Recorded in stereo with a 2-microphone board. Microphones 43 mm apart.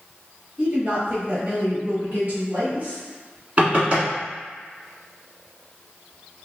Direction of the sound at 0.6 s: 20° right (ahead or behind).